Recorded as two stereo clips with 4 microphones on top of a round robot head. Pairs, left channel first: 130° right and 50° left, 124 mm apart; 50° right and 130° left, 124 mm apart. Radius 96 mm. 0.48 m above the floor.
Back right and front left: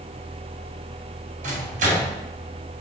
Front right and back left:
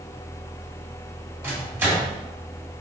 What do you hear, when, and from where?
1.4 s a microwave: 55° left, 1.9 m